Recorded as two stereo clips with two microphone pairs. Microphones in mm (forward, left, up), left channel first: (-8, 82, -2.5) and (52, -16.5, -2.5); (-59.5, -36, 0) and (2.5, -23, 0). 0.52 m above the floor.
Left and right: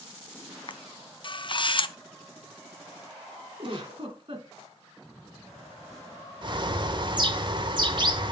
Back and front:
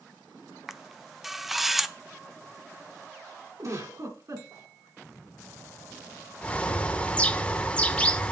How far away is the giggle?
About 2.5 m.